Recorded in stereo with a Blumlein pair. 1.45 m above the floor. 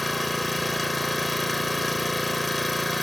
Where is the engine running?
5° left.